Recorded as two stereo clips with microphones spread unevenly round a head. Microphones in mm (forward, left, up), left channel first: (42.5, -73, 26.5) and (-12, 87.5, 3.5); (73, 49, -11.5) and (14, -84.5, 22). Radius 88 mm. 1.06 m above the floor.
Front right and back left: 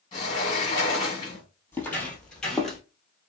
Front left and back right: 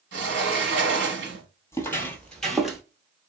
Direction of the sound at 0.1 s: 140° right.